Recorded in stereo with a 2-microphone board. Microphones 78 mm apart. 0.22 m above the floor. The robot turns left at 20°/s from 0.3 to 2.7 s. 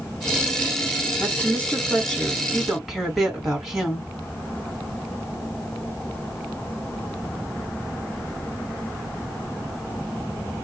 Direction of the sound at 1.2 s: 30° left.